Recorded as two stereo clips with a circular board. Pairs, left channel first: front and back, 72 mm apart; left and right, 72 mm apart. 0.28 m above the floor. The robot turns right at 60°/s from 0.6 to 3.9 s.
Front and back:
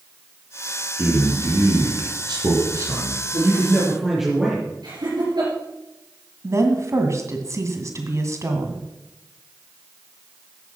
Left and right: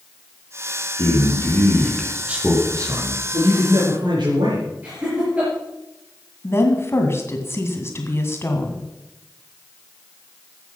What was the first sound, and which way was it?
A man speaking, 120° left.